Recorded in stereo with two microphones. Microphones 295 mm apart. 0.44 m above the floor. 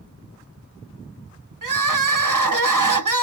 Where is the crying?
75° right (ahead or behind), 0.8 m.